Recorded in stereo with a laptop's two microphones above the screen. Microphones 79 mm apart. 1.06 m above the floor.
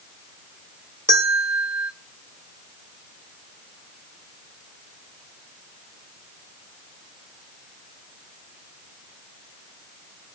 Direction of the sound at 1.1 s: 30° right (ahead or behind).